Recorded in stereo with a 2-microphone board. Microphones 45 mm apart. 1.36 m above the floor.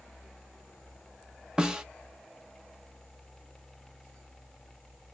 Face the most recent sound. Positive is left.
turn(degrees=-15)  # may be behind; listen again after turning